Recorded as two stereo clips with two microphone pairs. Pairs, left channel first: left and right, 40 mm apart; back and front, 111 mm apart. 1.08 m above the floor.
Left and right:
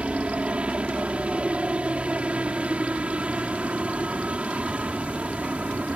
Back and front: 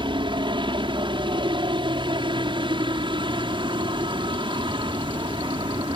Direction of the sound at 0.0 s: 35° right.